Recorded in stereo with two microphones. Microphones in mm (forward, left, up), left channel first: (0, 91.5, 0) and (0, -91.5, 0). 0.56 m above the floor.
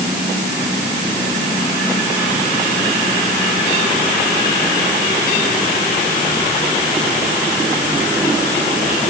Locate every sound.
Only background noise.